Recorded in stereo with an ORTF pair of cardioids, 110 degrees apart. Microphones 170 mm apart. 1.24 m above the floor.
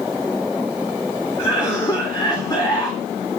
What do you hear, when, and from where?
1.4 s a cough: 20° left, 3.5 m